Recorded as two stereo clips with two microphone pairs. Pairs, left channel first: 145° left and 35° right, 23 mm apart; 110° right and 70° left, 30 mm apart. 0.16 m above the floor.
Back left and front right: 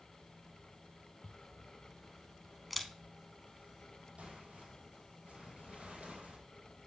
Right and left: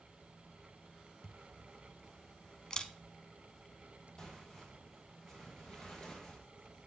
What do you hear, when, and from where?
1.2 s a camera shutter: 125° right, 0.6 m
4.2 s tearing paper: 45° right, 2 m